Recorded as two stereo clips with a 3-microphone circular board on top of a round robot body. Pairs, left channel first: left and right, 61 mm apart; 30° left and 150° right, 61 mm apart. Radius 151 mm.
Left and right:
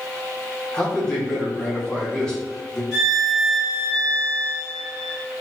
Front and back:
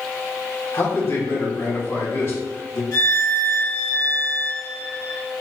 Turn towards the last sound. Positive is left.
turn(degrees=-5)